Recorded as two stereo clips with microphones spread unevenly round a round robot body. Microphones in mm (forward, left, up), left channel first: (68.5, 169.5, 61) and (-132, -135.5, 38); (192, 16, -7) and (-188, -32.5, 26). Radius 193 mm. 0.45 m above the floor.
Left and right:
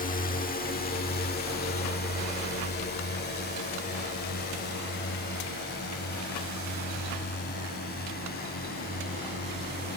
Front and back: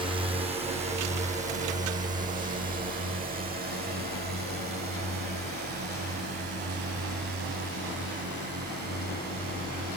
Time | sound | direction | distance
0.0 | a drone | 110° left | ?